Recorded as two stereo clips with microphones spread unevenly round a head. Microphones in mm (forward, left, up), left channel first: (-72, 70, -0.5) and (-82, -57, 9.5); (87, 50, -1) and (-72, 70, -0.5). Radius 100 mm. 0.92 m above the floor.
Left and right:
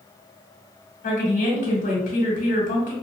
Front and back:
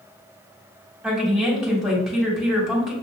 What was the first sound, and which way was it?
A woman speaking, 85° left.